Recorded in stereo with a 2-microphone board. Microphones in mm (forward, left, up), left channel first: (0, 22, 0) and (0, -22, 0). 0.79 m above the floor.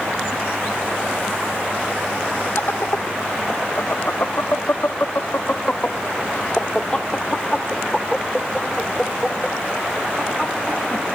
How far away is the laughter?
About 1.8 m.